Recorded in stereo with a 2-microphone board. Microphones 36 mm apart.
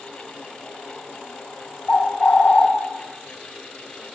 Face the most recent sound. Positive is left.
turn(degrees=45)  # may be behind; listen again after turning